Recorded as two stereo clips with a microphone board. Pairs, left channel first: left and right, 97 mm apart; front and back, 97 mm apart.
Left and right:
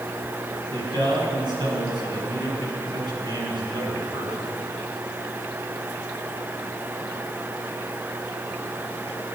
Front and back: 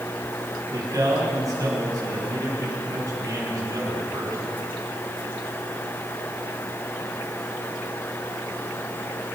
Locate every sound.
0.7 s a man speaking: 125° right, 5.5 m